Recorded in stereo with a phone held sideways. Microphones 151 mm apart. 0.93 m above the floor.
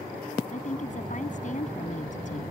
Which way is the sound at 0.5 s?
55° left (ahead or behind).